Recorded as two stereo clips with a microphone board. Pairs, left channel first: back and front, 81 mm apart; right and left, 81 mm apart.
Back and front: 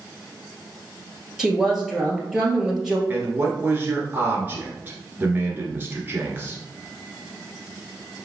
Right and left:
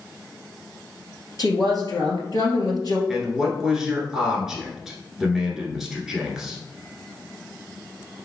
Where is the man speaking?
10° left, 1.3 m.